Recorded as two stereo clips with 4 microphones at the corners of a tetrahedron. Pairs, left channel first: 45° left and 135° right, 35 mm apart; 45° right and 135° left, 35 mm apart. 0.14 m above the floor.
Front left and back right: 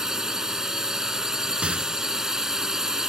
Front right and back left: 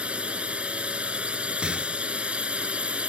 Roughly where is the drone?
Behind.